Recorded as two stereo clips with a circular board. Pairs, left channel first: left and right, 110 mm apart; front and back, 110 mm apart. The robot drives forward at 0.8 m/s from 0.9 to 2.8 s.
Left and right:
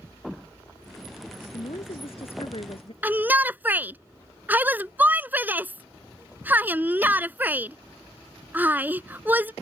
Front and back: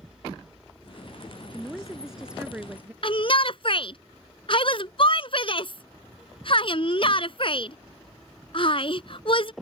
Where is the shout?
20° right.